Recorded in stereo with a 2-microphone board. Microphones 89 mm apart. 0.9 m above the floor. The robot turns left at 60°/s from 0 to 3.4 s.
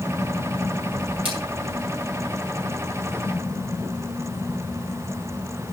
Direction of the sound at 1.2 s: 80° right.